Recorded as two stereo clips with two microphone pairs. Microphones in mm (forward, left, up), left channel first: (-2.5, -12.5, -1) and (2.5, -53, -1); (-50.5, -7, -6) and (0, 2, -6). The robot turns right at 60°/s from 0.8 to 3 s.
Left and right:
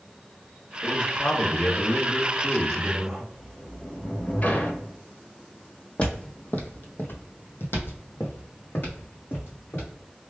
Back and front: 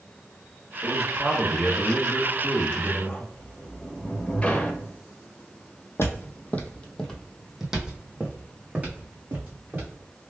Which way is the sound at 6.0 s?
160° left.